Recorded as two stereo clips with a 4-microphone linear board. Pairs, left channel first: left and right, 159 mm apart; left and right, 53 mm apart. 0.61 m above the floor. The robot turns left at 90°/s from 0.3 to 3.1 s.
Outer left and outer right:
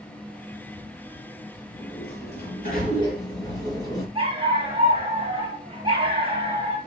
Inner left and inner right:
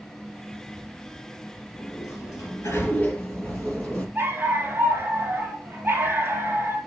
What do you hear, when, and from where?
1.7 s a sliding door: 145° left, 4.5 m; by 4.0 s 25° left, 4.5 m
4.2 s a dog barking: 35° right (ahead or behind), 3 m